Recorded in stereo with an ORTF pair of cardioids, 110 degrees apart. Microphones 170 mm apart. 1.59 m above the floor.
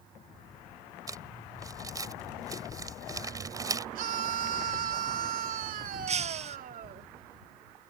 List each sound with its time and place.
1.1 s crumpling: 20° right
4.0 s a scream: 55° right
6.1 s breaking glass: 40° right